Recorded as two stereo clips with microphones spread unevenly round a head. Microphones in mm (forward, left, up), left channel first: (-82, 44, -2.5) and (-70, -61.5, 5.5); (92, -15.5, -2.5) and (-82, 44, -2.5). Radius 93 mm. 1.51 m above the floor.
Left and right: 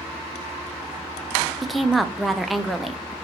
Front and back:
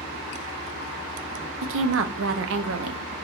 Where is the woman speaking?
175° right, 0.5 m.